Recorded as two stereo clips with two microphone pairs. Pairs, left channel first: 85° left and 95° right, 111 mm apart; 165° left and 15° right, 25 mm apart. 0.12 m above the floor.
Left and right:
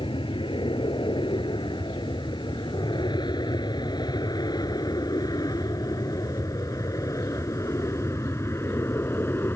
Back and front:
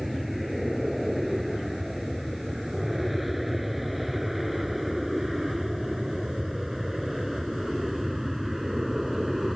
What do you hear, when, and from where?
0.0 s an aircraft: 70° left; by 9.6 s 60° left